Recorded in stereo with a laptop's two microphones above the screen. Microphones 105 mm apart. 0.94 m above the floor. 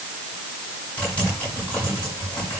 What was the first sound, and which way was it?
Typing on a keyboard, 15° left (ahead or behind).